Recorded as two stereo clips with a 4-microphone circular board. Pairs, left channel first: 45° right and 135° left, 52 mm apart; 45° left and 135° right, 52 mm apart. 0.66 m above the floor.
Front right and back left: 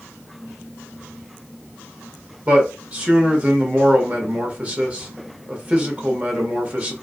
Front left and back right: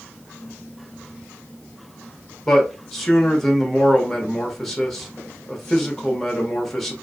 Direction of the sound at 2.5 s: 125° left.